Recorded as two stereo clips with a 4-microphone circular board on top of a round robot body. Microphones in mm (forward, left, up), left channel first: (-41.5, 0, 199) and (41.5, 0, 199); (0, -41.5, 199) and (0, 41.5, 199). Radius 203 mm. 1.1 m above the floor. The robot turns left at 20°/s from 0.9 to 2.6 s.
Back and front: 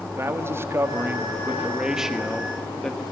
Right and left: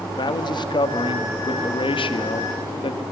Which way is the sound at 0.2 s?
65° right.